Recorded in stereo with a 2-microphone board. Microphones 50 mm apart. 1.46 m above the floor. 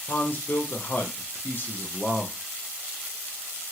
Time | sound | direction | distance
0.1 | a man speaking | 40° left (ahead or behind) | 0.7 m